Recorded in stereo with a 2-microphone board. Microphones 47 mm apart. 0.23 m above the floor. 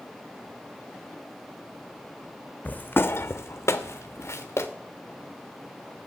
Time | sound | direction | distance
2.6 | footsteps | 35° left (ahead or behind) | 0.6 m